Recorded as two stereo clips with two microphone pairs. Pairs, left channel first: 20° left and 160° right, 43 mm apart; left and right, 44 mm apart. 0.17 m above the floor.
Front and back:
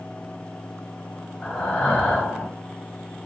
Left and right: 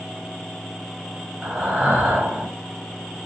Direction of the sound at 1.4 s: 45° right.